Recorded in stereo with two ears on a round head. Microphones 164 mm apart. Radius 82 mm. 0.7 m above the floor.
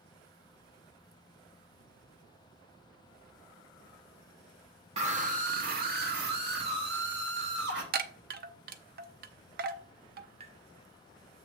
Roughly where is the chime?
Right.